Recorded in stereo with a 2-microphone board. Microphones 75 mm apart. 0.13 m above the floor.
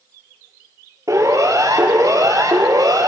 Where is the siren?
50° right (ahead or behind), 4 m; by 3.1 s 60° right (ahead or behind), 4 m.